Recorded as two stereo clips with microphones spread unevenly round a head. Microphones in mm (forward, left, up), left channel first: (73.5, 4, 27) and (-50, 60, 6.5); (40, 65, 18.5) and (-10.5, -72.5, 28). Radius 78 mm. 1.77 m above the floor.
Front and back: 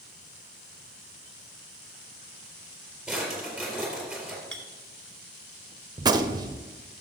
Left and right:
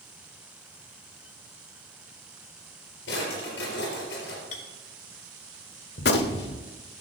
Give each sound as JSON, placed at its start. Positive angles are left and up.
{"t": 3.1, "sound": "a drawer", "azimuth_deg": 65, "distance_m": 4.0}
{"t": 4.5, "sound": "a clink", "azimuth_deg": 50, "distance_m": 1.5}
{"t": 6.0, "sound": "a gunshot", "azimuth_deg": 95, "distance_m": 0.7}